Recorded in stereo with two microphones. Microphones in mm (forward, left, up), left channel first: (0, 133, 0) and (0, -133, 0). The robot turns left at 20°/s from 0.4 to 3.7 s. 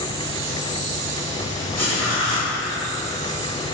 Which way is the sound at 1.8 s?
65° left (ahead or behind).